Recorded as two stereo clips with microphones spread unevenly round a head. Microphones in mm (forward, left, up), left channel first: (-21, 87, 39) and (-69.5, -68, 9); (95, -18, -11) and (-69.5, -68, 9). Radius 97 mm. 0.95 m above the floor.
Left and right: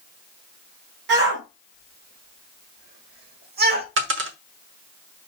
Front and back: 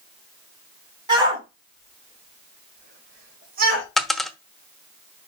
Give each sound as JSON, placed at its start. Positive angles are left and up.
{"t": 1.1, "sound": "a shout", "azimuth_deg": -100, "distance_m": 4.5}
{"t": 4.0, "sound": "a dropped coin", "azimuth_deg": -75, "distance_m": 0.9}